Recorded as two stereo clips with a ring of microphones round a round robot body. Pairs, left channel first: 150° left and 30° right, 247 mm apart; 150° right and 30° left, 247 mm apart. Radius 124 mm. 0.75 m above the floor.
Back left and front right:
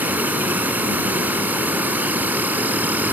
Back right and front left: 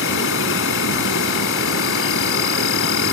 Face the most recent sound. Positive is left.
turn(degrees=-115)